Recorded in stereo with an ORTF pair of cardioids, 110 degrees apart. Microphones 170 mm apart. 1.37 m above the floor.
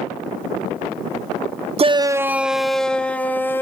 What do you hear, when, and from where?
1.8 s a shout: 35° right, 0.5 m; by 3.6 s 10° left, 1.6 m